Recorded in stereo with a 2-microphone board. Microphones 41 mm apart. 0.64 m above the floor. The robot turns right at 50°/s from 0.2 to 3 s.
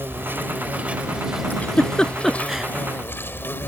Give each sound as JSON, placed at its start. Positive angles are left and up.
{"t": 0.0, "sound": "an insect", "azimuth_deg": -70}
{"t": 1.5, "sound": "a giggle", "side_deg": 45}